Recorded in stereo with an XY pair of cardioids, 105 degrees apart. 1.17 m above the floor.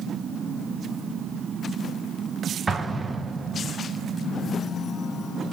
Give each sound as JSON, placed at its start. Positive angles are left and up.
{"t": 2.7, "sound": "an explosion", "azimuth_deg": -25, "distance_m": 0.7}